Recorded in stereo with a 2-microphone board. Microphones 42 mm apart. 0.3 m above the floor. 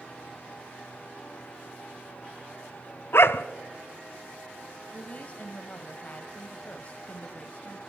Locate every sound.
3.1 s a dog barking: 65° left (ahead or behind), 0.7 m
4.9 s a woman speaking: 35° left (ahead or behind), 1.7 m